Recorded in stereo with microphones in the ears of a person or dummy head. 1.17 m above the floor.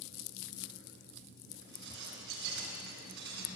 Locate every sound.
1.6 s dishes clattering: 65° right (ahead or behind), 8 m